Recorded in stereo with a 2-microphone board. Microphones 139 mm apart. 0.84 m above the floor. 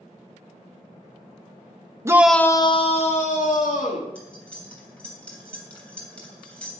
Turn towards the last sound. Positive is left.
turn(degrees=10)  # may be behind; listen again after turning